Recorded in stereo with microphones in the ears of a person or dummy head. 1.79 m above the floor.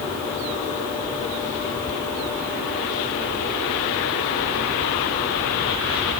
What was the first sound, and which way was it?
Only background noise.